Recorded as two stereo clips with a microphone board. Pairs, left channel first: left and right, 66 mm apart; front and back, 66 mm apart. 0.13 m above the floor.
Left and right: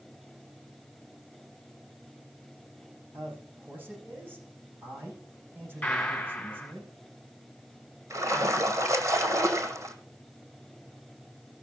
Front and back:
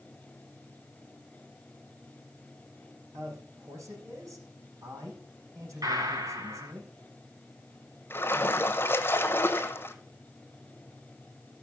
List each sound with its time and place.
3.1 s a man speaking: 145° right, 6.5 m
5.8 s a gunshot: 160° left, 3.5 m
8.1 s a splash: 55° right, 1.5 m